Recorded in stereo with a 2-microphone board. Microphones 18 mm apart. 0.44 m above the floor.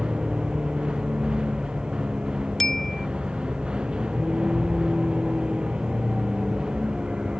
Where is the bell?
15° left (ahead or behind).